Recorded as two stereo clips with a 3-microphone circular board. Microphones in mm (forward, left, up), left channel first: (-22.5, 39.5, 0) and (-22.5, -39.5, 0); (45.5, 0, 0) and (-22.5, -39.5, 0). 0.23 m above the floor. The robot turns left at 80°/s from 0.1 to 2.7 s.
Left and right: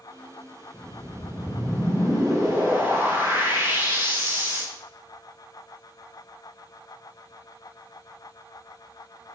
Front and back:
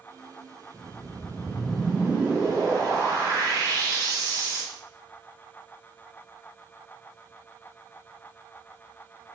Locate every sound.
0.7 s a whoosh: 25° left, 2 m; by 4.6 s 135° right, 2 m